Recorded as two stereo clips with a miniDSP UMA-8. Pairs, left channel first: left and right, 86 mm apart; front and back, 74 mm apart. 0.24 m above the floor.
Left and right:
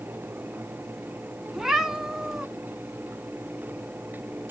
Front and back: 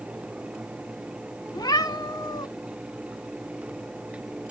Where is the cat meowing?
5° right, 0.8 m.